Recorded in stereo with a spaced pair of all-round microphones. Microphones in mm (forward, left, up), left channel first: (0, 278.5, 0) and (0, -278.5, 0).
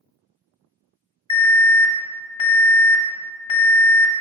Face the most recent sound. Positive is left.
turn(degrees=60)  # may be behind; listen again after turning